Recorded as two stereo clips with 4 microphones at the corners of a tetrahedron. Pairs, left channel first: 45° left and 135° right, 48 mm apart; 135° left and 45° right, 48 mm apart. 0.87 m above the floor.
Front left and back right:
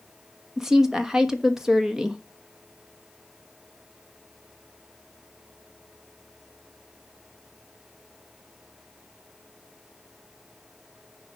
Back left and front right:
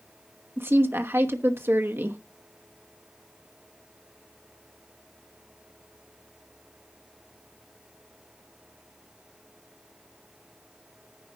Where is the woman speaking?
55° right, 1.1 m.